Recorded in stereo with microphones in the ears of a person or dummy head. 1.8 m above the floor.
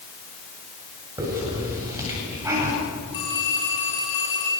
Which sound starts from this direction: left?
A phone ringing, at 3.1 s.